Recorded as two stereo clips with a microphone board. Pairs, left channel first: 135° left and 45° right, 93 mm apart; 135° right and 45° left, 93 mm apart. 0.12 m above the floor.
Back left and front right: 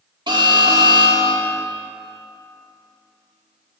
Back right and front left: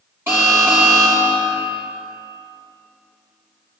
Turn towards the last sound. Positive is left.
turn(degrees=-15)